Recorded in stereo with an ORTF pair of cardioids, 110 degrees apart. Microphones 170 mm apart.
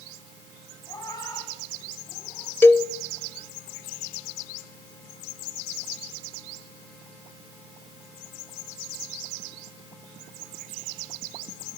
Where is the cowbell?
10° left, 1.0 m.